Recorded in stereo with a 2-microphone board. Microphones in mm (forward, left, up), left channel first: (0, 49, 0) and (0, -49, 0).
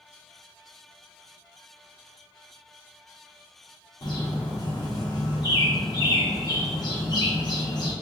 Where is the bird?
45° left (ahead or behind), 1.3 m.